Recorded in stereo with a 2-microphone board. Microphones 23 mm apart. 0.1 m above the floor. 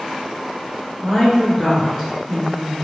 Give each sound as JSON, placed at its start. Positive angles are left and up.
{"t": 1.0, "sound": "a woman speaking", "side_deg": 0, "distance_m": 1.5}